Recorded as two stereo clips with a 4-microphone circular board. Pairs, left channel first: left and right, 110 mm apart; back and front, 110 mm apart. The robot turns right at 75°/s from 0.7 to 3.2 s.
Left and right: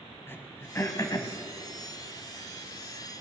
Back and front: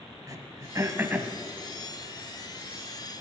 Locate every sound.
0.3 s throat clearing: 30° left, 1.2 m; by 1.3 s 80° left, 1.2 m